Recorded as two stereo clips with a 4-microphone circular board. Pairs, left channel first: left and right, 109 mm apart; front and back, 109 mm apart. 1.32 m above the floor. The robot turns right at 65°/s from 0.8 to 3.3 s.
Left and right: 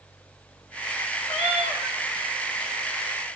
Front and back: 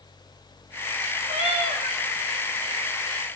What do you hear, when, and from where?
1.3 s a cat meowing: 175° left, 2.5 m; by 2.0 s 140° right, 2.5 m